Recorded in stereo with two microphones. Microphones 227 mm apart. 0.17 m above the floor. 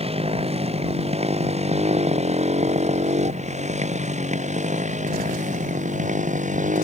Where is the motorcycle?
25° right (ahead or behind); by 6.8 s 35° right (ahead or behind).